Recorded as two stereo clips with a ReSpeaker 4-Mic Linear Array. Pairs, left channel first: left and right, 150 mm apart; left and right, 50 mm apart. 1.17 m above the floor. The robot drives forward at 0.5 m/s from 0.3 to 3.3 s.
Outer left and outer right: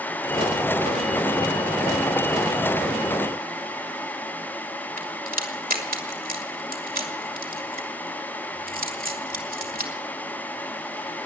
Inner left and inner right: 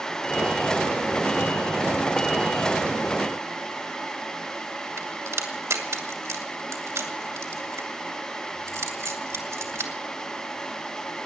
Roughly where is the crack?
Right.